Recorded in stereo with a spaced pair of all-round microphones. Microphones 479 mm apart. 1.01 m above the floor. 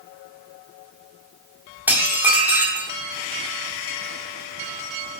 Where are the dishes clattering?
5° right (ahead or behind), 1.8 m.